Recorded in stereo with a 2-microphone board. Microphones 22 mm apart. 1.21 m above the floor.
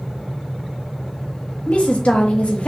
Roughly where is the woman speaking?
Left.